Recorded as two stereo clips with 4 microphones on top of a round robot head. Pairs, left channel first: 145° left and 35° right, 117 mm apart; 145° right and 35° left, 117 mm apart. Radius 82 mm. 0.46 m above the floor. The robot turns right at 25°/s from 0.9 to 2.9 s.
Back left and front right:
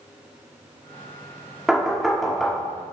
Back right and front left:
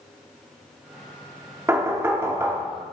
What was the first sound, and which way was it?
Knocking, 40° left.